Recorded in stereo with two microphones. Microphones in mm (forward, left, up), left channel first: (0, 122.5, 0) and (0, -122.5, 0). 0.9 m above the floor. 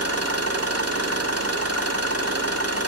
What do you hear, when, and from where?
0.0 s an engine running: 80° right, 1.6 m